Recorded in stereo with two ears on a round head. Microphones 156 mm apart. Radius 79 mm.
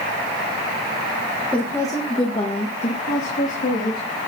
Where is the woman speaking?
10° left (ahead or behind), 1.3 m; by 4.2 s 60° left (ahead or behind), 2.5 m.